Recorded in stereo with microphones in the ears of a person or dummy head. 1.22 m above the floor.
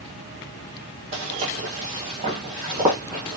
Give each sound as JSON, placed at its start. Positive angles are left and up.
{"t": 1.1, "sound": "footsteps", "side_deg": -35, "distance_m": 1.4}